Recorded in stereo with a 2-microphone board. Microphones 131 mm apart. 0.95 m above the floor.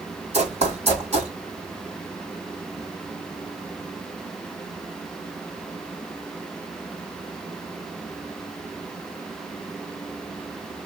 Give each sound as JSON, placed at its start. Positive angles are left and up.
{"t": 0.3, "sound": "running footsteps", "side_deg": -50, "distance_m": 1.9}